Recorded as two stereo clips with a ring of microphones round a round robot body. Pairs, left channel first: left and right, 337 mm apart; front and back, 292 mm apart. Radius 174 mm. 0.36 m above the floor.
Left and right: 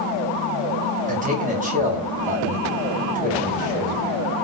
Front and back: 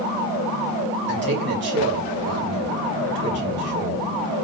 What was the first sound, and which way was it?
A man speaking, 145° right.